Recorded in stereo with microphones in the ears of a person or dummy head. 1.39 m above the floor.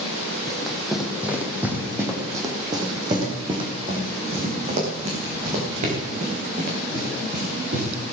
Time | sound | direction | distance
0.5 | running footsteps | 5° left (ahead or behind) | 3 m